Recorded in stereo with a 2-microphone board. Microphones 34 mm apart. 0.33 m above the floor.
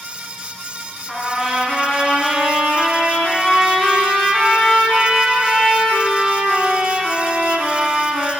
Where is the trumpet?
15° left (ahead or behind), 1.8 m.